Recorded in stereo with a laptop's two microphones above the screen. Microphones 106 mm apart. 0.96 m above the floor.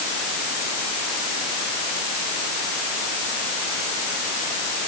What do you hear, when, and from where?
Only background noise.